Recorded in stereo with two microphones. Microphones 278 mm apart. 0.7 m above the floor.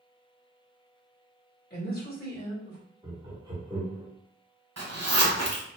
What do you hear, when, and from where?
1.7 s a woman speaking: 35° left (ahead or behind), 1.4 m
3.0 s laughter: 15° right (ahead or behind), 1.0 m
4.8 s a zipper: 60° right (ahead or behind), 1.0 m